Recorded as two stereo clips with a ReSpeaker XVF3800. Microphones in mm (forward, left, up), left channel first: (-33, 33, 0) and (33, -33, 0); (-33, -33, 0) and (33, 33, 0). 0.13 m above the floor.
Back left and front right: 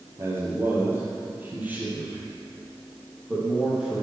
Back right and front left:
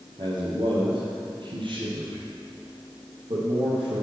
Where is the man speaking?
15° left, 3.5 m; by 4.0 s 35° left, 5 m.